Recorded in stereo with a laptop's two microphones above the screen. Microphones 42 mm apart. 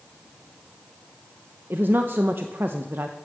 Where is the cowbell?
I don't hear a cowbell.